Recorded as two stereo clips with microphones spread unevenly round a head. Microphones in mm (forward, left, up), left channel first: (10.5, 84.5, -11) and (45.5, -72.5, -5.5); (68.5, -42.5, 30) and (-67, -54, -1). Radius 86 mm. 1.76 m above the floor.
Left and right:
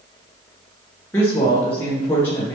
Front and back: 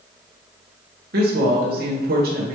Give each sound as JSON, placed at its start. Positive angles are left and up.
{"t": 1.1, "sound": "a woman speaking", "azimuth_deg": 180, "distance_m": 1.7}